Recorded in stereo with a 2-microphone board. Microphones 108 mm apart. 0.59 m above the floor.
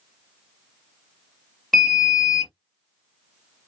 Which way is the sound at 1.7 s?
Centre (ahead or behind).